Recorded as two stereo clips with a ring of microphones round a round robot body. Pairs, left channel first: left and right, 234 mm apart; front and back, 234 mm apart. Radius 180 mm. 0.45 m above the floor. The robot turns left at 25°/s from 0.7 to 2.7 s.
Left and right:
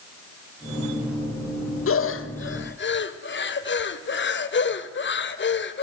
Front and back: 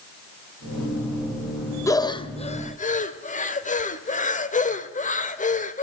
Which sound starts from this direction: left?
Breathing, at 1.9 s.